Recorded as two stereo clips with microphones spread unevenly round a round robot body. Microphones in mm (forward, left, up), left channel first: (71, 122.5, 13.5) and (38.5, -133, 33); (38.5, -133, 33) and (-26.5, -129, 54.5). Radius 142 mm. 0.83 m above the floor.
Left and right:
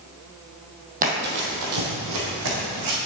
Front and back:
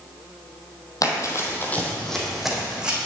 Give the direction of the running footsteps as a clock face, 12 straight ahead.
1 o'clock.